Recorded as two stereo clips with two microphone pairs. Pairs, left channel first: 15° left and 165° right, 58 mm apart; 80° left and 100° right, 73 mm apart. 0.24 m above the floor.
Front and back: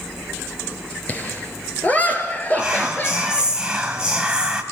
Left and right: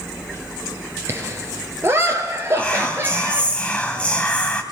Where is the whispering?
135° left, 1.2 m.